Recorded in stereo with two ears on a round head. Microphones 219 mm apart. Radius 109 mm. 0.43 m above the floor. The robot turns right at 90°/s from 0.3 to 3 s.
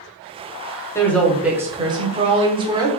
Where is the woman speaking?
10° left (ahead or behind), 0.8 m; by 2.9 s 15° right (ahead or behind), 0.8 m.